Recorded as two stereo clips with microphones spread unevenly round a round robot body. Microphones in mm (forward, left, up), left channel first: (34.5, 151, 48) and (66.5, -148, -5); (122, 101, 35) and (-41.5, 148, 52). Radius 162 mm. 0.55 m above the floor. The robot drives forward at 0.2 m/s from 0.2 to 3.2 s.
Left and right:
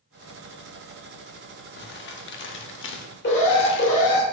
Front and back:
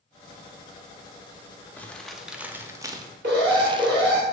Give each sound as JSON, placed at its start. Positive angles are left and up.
{"t": 1.8, "sound": "crumpling", "azimuth_deg": 50, "distance_m": 0.5}
{"t": 3.2, "sound": "an alarm", "azimuth_deg": 155, "distance_m": 0.9}